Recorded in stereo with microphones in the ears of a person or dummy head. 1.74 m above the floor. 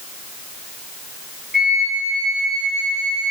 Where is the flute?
5° right (ahead or behind), 5.5 m.